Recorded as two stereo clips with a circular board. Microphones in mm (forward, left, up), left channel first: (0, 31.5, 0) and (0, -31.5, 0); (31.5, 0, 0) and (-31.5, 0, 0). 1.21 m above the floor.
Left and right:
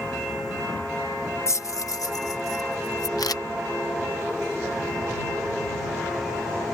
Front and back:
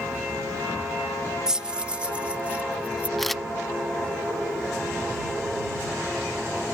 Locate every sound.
1.5 s keys jangling: 100° left; by 3.1 s 110° left
3.2 s a camera shutter: 90° left